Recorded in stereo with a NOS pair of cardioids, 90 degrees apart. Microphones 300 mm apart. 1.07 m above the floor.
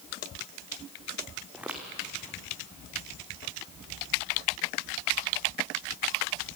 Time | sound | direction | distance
1.5 | footsteps | 5° right | 4 m